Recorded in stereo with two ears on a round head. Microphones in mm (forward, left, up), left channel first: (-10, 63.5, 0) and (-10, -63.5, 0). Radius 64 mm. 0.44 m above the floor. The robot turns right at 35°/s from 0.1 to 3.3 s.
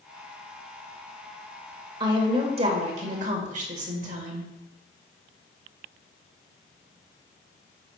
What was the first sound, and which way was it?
A woman speaking, 145° right.